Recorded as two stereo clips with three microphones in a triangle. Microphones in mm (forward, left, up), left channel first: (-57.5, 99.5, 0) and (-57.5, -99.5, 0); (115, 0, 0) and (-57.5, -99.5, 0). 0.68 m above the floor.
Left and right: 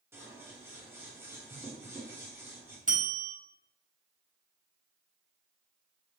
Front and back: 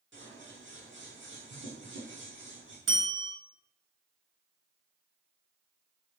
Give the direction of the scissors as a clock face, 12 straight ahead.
6 o'clock.